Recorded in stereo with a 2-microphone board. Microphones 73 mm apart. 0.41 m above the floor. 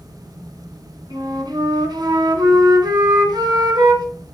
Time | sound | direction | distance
1.1 | a flute | 75° right (ahead or behind) | 2 m